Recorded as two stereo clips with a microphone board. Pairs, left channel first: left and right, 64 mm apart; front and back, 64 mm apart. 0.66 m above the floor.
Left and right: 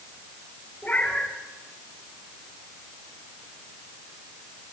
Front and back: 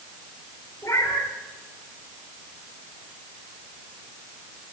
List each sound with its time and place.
0.8 s a cat meowing: 30° left, 5 m